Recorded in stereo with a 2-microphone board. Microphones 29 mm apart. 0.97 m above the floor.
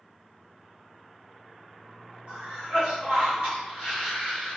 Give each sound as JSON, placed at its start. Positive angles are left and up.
{"t": 2.3, "sound": "a cough", "side_deg": -60, "distance_m": 1.2}